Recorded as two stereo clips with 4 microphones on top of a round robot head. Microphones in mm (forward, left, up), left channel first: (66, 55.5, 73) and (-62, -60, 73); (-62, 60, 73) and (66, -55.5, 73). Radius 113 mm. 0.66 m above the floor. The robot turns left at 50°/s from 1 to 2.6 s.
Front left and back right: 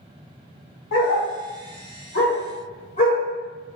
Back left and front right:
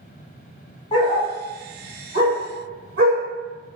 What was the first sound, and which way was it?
A dog barking, 75° left.